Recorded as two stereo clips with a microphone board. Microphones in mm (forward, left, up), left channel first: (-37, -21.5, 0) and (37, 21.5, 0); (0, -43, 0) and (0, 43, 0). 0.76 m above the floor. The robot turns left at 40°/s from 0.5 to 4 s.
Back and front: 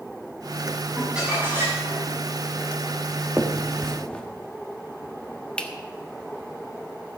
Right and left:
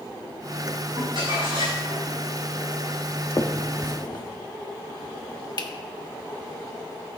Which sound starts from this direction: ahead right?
A finger snap, at 3.4 s.